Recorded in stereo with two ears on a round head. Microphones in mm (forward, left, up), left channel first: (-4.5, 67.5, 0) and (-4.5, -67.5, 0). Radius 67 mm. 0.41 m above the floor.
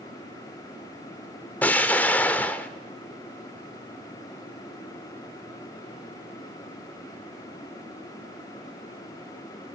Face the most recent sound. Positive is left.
turn(degrees=10)  # may be behind; listen again after turning